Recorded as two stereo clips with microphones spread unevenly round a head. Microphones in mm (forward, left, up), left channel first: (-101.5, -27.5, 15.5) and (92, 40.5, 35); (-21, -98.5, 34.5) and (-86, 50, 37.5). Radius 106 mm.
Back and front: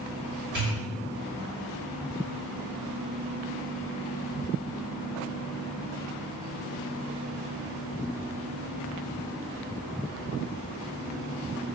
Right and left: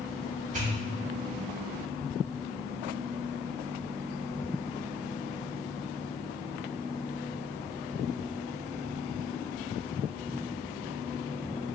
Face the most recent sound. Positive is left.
turn(degrees=55)